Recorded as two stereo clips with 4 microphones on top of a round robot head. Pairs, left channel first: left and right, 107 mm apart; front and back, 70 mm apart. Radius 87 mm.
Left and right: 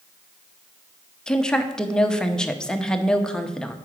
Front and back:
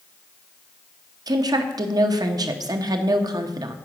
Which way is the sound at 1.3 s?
170° left.